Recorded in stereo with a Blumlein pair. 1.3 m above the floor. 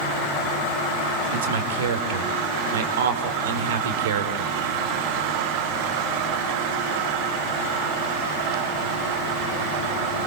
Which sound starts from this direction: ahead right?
A man speaking, at 1.3 s.